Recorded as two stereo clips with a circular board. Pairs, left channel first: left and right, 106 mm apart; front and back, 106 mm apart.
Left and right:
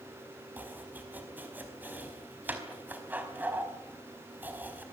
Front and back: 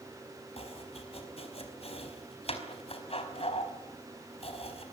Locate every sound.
0.6 s chopping: 20° right, 4.5 m